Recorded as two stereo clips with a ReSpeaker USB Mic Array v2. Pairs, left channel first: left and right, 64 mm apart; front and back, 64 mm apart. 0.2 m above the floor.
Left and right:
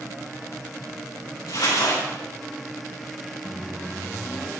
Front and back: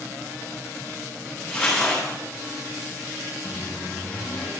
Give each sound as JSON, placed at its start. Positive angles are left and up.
{"t": 1.5, "sound": "crumpling", "azimuth_deg": 85, "distance_m": 3.5}
{"t": 3.5, "sound": "a microwave", "azimuth_deg": 20, "distance_m": 0.8}